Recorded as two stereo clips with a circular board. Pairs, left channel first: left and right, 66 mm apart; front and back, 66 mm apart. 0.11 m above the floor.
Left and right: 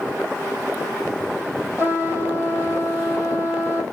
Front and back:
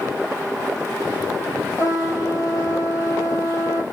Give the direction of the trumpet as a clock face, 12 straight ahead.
1 o'clock.